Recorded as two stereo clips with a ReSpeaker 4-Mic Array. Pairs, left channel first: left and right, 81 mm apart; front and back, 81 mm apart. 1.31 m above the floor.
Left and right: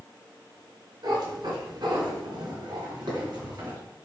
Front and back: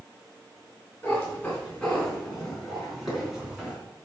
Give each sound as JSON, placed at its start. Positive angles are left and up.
{"t": 1.0, "sound": "a cat meowing", "azimuth_deg": -70, "distance_m": 3.0}